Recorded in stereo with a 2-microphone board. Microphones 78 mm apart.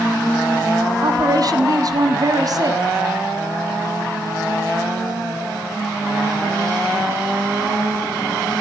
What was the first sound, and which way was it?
A woman speaking, 50° right (ahead or behind).